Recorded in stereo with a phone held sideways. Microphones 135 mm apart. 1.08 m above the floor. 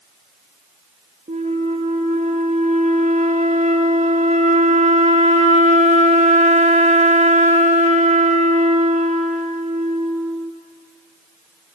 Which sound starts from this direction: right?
A flute, at 1.3 s.